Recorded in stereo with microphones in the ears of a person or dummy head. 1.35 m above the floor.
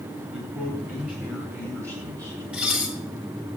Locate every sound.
0.3 s a man speaking: 10° right (ahead or behind), 8 m; by 2.4 s 20° right (ahead or behind), 7.5 m
2.5 s dishes clattering: 5° right (ahead or behind), 2 m